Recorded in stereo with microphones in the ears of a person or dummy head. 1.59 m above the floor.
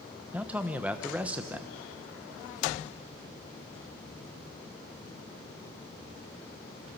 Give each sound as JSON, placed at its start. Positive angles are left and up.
{"t": 0.3, "sound": "a man speaking", "side_deg": -5, "distance_m": 1.0}